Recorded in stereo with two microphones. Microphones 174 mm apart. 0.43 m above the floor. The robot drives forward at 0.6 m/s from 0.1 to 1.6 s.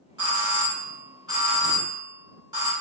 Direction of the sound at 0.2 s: 25° right (ahead or behind).